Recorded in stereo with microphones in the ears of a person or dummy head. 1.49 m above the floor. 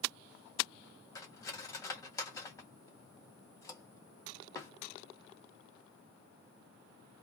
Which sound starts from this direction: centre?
Cutlery clinking, at 1.1 s.